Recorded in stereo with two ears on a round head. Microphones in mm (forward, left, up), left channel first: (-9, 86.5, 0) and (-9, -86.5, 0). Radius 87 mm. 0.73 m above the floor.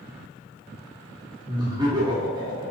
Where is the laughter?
20° right (ahead or behind), 1.1 m.